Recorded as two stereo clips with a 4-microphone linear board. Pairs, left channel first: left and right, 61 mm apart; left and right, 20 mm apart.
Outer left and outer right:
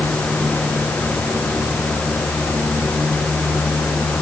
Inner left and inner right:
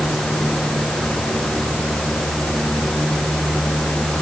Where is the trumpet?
No trumpet in this recording.